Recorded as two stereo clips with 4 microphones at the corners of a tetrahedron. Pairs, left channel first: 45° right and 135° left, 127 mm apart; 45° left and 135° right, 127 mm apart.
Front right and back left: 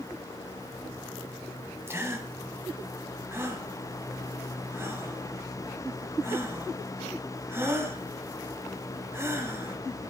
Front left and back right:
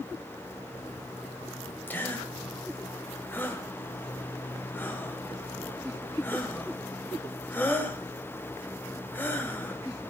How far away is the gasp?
About 1.6 m.